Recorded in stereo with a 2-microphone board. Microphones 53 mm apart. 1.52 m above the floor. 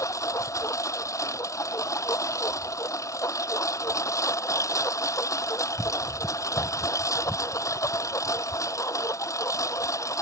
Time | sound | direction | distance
0.0 | a lawn mower | 85° left | ?